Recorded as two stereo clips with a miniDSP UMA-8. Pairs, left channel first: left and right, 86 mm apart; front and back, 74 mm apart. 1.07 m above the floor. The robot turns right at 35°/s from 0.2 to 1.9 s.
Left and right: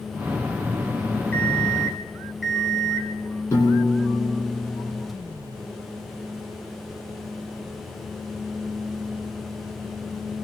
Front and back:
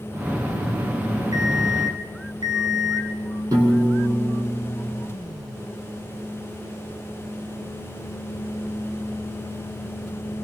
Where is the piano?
145° left, 7.5 m.